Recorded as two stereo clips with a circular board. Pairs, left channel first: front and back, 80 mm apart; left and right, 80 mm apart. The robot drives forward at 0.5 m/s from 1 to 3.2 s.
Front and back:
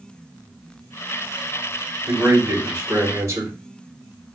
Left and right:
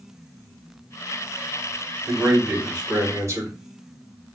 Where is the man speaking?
130° right, 2.5 m; by 3.6 s 140° right, 3 m.